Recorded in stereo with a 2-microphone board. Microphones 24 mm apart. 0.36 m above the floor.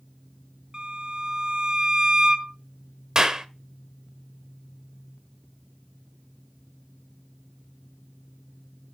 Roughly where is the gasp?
I don't hear a gasp.